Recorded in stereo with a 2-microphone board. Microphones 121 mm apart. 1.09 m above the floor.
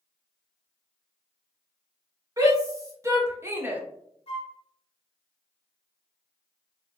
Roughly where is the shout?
Right.